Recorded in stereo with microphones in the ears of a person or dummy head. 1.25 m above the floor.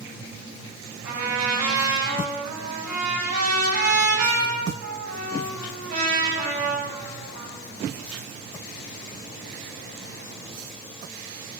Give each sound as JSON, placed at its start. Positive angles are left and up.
{"t": 1.0, "sound": "a trumpet", "side_deg": -50, "distance_m": 8.0}